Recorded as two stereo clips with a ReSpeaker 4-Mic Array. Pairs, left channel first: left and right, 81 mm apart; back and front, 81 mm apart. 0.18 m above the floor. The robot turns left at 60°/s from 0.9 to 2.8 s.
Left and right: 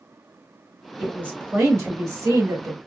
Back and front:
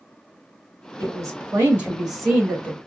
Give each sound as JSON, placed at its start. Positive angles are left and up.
{"t": 1.0, "sound": "a woman speaking", "azimuth_deg": -15, "distance_m": 2.0}